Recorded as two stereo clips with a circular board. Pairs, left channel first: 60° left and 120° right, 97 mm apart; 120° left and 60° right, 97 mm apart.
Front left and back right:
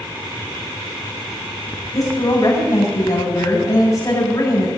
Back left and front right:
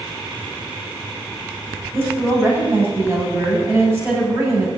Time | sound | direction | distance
1.9 | a woman speaking | 5° left | 7 m